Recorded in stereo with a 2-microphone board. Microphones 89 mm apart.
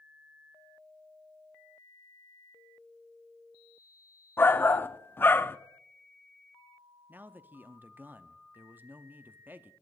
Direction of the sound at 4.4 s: 25° left (ahead or behind).